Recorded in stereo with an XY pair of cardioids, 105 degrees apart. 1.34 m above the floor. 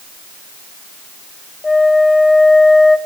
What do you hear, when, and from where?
1.6 s a flute: 20° left, 1.1 m